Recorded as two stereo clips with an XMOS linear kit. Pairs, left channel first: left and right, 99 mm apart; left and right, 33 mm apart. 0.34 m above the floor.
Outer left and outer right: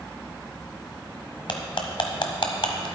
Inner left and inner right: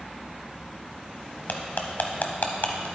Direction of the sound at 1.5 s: 60° left (ahead or behind).